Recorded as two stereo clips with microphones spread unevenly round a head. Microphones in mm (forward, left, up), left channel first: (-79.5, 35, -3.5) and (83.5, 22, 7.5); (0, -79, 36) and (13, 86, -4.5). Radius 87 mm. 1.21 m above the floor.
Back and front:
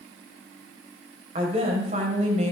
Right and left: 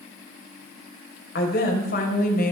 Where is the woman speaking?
65° right, 5 m; by 2.5 s 55° right, 5 m.